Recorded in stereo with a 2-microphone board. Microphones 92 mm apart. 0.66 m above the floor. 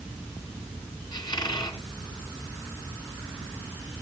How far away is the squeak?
About 3 m.